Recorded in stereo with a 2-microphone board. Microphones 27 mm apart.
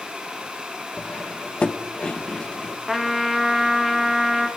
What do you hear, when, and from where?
1.0 s cutlery clinking: 40° left (ahead or behind), 0.9 m
2.9 s a trumpet: 10° right (ahead or behind), 1.7 m